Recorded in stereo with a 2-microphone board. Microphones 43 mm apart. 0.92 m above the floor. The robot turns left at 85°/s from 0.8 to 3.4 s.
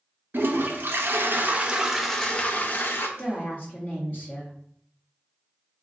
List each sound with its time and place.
0.3 s a toilet flushing: 75° right, 0.6 m; by 3.1 s 90° left, 0.6 m
3.2 s a woman speaking: 60° left (ahead or behind), 1.4 m; by 4.5 s 45° left (ahead or behind), 1.4 m